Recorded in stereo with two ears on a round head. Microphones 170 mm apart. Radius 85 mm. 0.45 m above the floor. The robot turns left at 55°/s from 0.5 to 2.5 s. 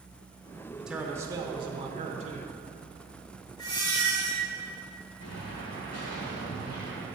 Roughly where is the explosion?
Left.